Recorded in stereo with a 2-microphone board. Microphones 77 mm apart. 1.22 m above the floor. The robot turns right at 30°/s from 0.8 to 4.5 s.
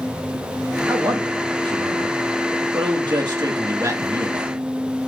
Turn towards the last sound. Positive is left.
turn(degrees=-25)